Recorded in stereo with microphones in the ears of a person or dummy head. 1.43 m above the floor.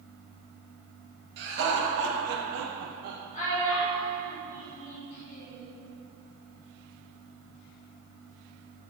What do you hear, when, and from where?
1.4 s laughter: 60° right (ahead or behind), 2.0 m; by 3.2 s 35° right (ahead or behind), 0.7 m
3.3 s a child speaking: 35° left (ahead or behind), 2.5 m